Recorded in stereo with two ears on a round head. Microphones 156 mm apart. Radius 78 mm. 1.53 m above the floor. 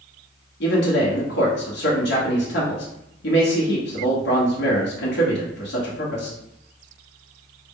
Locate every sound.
0.6 s a man speaking: 65° left (ahead or behind), 1.1 m